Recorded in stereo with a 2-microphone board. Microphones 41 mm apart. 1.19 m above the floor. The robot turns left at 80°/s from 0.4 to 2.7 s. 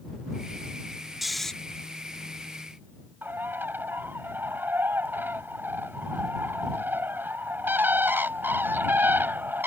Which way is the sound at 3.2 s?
60° right (ahead or behind).